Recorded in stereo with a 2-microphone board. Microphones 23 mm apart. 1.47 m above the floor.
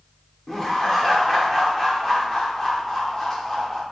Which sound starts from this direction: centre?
Laughter, at 0.5 s.